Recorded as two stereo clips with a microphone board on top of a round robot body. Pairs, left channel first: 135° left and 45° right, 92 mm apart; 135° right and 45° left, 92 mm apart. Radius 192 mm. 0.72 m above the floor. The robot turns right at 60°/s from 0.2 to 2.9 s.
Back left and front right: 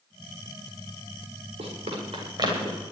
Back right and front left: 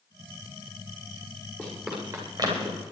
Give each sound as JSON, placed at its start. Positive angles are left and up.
{"t": 1.6, "sound": "running footsteps", "azimuth_deg": -60, "distance_m": 9.5}